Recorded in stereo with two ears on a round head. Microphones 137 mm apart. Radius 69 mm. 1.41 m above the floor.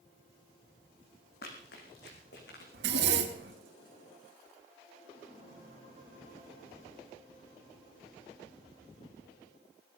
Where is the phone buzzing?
I don't hear a phone buzzing.